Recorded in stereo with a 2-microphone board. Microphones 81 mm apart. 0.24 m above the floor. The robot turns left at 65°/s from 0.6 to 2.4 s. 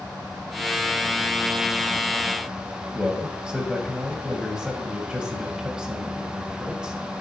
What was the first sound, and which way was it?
A man speaking, 10° right (ahead or behind).